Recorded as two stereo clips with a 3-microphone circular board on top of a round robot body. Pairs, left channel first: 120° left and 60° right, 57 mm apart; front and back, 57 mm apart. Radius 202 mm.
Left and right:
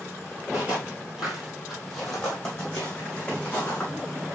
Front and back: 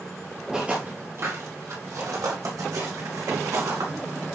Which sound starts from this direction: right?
Footsteps, at 0.5 s.